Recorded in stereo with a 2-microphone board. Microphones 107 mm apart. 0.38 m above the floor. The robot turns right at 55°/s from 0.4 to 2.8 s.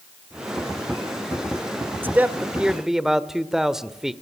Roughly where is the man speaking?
Centre.